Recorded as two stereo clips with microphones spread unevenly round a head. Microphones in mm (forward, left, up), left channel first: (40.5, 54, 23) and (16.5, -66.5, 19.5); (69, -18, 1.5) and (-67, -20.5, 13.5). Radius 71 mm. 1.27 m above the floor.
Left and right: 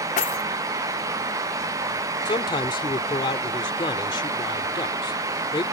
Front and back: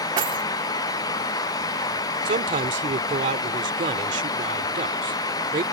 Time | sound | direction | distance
0.2 | keys jangling | 120° left | ?
2.2 | a man speaking | 140° left | ?